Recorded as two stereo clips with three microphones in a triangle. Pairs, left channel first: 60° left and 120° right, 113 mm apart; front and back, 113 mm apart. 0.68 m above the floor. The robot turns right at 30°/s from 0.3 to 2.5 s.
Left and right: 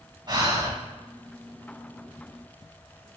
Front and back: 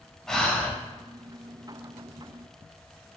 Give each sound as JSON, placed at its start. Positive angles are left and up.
{"t": 0.3, "sound": "breathing", "azimuth_deg": -85, "distance_m": 0.5}